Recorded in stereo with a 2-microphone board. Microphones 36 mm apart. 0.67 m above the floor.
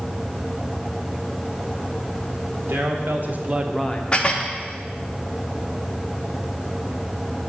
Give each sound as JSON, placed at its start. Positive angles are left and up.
{"t": 2.7, "sound": "a man speaking", "side_deg": -70, "distance_m": 1.4}
{"t": 4.1, "sound": "dishes clattering", "side_deg": 25, "distance_m": 0.7}